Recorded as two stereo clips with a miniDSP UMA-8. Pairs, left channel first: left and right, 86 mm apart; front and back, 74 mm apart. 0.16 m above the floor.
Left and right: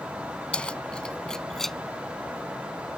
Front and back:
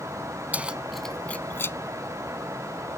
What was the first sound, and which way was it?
Keys jangling, 150° left.